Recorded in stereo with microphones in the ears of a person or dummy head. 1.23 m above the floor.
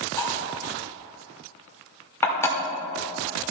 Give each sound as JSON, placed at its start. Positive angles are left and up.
{"t": 0.2, "sound": "cutlery clinking", "side_deg": 15, "distance_m": 2.0}